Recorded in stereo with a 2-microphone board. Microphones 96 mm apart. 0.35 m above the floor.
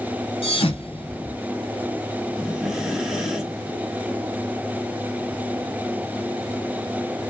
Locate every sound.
0.4 s a thud: 90° left, 1.3 m
2.4 s breathing: centre (ahead or behind), 1.8 m